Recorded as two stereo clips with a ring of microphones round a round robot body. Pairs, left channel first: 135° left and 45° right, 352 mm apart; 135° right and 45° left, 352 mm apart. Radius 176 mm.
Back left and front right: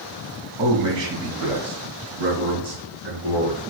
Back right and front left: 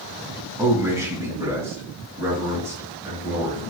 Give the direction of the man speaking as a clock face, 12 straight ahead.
1 o'clock.